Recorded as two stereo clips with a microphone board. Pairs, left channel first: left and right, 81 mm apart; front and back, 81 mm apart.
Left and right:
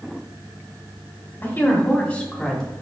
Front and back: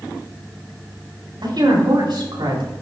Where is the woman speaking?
155° left, 4.5 m; by 2.7 s 175° left, 4 m.